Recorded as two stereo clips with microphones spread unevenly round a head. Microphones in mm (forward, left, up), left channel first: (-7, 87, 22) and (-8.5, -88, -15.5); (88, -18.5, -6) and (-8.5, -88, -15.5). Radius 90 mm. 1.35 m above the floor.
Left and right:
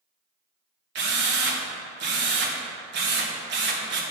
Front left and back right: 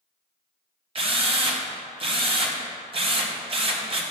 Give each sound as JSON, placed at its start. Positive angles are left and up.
{"t": 0.9, "sound": "a drill", "azimuth_deg": -105, "distance_m": 1.3}